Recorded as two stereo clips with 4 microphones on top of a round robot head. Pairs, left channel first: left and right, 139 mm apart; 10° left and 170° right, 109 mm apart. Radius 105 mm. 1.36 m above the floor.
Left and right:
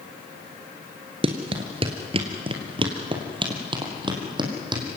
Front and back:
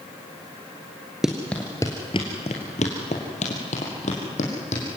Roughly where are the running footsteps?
Right.